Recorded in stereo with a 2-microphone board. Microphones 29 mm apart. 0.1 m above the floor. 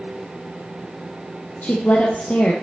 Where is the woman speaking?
55° left (ahead or behind), 2.5 m.